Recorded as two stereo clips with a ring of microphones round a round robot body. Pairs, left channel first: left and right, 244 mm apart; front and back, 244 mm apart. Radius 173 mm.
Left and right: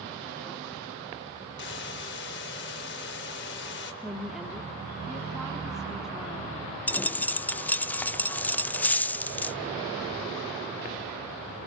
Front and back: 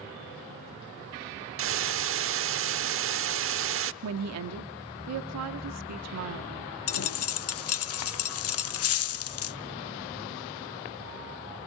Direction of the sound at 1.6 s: 150° left.